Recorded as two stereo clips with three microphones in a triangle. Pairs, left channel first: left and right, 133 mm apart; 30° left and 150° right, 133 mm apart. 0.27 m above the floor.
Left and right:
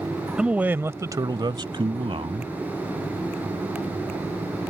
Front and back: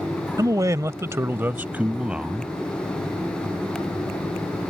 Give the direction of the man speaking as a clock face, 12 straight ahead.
6 o'clock.